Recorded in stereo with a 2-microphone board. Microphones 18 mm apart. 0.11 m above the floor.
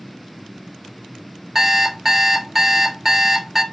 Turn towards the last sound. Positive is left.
turn(degrees=-15)  # may be behind; listen again after turning